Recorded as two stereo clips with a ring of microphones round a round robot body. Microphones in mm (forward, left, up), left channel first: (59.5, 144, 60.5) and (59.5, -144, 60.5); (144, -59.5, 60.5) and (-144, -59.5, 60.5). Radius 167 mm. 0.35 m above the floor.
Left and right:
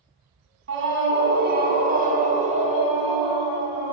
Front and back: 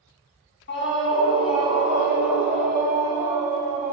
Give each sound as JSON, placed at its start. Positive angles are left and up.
{"t": 0.7, "sound": "a scream", "azimuth_deg": -50, "distance_m": 3.5}